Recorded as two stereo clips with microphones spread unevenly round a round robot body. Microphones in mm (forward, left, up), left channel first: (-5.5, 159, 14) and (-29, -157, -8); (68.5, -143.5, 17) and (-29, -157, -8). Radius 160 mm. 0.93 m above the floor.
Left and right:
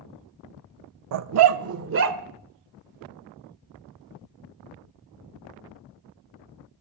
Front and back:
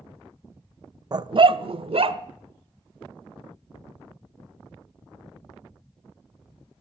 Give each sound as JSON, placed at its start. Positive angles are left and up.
{"t": 1.1, "sound": "a dog barking", "azimuth_deg": -115, "distance_m": 0.6}